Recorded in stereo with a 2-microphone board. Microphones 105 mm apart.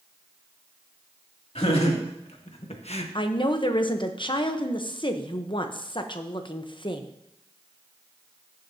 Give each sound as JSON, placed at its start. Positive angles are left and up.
{"t": 1.6, "sound": "laughter", "side_deg": 80, "distance_m": 2.5}
{"t": 3.1, "sound": "a woman speaking", "side_deg": 50, "distance_m": 0.9}